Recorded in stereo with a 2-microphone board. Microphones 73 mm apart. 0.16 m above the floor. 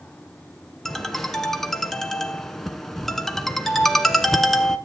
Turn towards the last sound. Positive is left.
turn(degrees=5)  # may be behind; listen again after turning